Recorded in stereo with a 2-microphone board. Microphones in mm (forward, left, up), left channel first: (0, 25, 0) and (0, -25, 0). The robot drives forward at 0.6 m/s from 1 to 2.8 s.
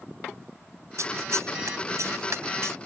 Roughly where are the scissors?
Right.